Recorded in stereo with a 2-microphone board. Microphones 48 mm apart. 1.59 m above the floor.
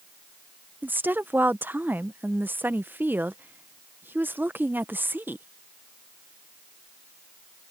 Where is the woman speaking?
45° right (ahead or behind).